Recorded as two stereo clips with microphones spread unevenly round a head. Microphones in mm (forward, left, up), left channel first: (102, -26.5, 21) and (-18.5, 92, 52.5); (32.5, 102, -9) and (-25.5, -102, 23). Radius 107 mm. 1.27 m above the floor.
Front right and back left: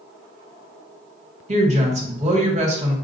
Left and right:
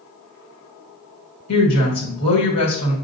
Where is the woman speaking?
85° left, 1.7 m.